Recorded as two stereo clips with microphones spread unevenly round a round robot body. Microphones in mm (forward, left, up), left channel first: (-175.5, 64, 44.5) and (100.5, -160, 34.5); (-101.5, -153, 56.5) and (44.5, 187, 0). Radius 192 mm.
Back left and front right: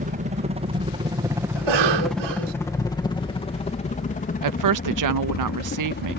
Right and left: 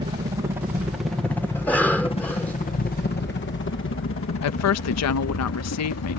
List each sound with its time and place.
0.0 s a helicopter: 10° left; by 6.2 s 160° right
1.6 s a cough: 25° right
4.4 s a woman speaking: 60° right